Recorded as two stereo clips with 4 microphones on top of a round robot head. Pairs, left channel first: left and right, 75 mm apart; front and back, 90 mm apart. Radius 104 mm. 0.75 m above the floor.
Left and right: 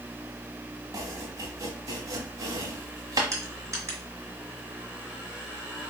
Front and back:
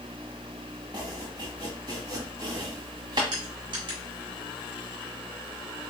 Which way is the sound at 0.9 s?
125° right.